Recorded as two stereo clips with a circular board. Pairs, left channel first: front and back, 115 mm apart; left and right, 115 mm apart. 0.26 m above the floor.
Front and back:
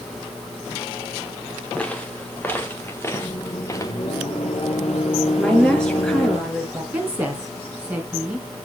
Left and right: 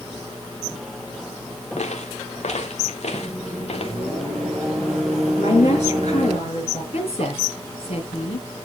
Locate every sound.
1.8 s footsteps: 80° left, 3.5 m; by 4.0 s 60° left, 3 m
3.1 s a microwave: straight ahead, 6 m
5.4 s a woman speaking: 85° left, 4.5 m
6.9 s a woman speaking: 105° left, 3 m